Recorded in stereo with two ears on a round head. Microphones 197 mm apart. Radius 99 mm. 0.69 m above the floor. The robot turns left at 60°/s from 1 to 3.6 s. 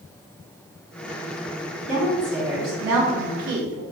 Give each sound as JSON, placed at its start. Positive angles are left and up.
{"t": 1.9, "sound": "a woman speaking", "azimuth_deg": 35, "distance_m": 1.7}